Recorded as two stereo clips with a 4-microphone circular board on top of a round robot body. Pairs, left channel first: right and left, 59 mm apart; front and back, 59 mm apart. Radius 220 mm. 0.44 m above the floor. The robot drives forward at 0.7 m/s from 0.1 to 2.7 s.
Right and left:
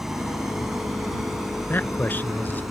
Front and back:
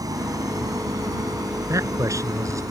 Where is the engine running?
175° left.